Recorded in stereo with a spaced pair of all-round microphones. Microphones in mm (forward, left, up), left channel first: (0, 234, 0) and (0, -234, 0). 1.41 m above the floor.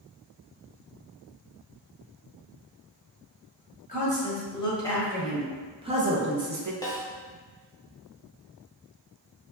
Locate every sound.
3.9 s a woman speaking: 15° left (ahead or behind), 1.7 m; by 6.7 s 45° right (ahead or behind), 0.6 m
6.8 s a snare drum: 10° left (ahead or behind), 0.7 m